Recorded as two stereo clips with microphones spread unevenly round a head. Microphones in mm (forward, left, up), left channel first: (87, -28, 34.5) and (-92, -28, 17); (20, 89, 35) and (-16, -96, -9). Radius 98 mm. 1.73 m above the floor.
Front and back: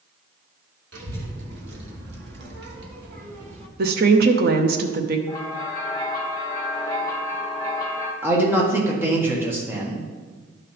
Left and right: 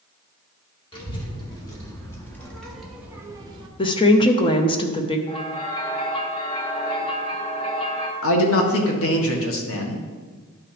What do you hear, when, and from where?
0.9 s a child speaking: 140° left, 2.5 m; by 3.7 s 155° right, 1.0 m
3.8 s a woman speaking: 135° left, 0.7 m
5.3 s a bell: 55° left, 1.0 m
8.2 s a man speaking: 100° left, 1.4 m